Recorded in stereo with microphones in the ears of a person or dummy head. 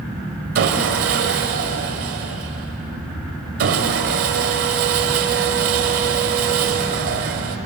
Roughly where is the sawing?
Right.